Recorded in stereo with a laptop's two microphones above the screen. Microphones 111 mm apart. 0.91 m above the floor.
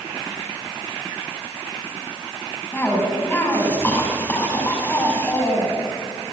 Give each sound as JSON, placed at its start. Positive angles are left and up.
{"t": 2.7, "sound": "a cough", "side_deg": 20, "distance_m": 5.5}